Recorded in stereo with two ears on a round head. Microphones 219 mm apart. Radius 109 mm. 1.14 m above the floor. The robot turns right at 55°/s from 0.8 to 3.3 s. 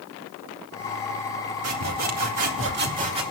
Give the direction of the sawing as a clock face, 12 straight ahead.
4 o'clock.